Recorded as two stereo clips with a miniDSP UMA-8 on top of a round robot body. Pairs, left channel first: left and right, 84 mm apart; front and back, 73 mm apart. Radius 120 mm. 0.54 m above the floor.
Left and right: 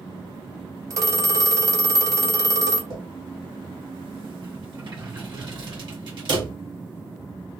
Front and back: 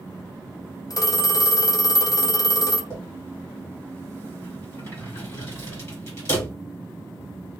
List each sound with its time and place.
0.9 s a phone ringing: 40° right, 0.7 m
2.9 s a drawer: 60° right, 2.0 m